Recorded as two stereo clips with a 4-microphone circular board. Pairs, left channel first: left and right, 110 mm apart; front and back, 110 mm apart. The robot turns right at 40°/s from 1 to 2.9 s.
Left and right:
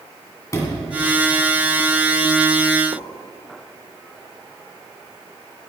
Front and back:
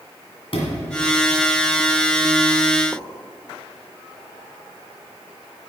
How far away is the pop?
About 1.0 m.